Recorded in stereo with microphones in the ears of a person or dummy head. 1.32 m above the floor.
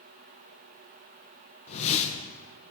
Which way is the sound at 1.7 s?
35° left (ahead or behind).